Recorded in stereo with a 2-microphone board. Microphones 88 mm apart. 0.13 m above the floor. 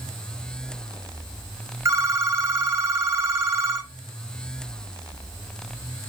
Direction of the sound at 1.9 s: 30° right (ahead or behind).